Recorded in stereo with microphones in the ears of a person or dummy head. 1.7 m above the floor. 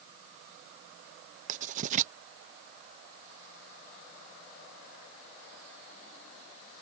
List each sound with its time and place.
1.5 s writing: 45° right (ahead or behind)